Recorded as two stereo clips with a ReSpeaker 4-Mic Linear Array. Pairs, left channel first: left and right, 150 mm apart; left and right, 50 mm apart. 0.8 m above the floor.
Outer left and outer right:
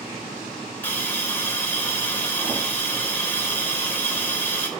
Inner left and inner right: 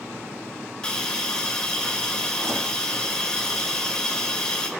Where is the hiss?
15° left (ahead or behind), 4 m.